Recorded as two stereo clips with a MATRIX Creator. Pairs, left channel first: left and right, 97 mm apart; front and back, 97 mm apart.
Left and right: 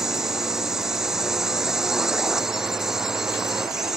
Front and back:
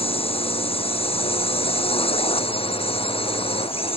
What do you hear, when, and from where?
0.0 s a drone: 5° right